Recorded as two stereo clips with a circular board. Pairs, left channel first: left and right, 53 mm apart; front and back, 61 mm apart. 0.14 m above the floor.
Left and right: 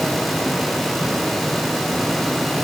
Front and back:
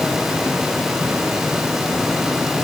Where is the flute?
No flute in this recording.